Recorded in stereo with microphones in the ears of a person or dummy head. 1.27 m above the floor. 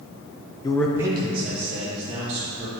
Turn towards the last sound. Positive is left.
turn(degrees=-35)  # may be behind; listen again after turning